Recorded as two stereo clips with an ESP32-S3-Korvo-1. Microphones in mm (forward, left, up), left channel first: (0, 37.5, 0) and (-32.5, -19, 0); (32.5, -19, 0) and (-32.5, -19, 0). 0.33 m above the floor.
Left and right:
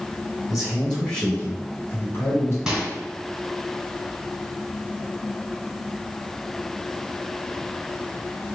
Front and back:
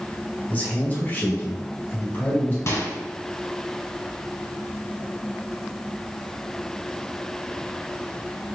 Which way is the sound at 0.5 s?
35° right.